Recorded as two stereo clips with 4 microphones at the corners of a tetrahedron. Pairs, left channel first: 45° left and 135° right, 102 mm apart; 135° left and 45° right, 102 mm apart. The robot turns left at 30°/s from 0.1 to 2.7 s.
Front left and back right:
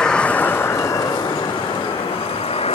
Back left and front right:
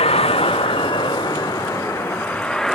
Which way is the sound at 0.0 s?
125° left.